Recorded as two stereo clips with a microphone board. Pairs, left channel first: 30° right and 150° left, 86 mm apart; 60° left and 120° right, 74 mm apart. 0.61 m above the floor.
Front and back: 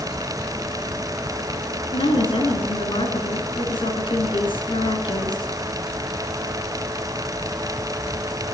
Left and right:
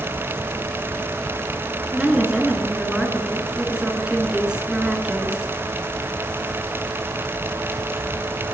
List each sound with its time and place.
1.9 s a woman speaking: 40° right, 9 m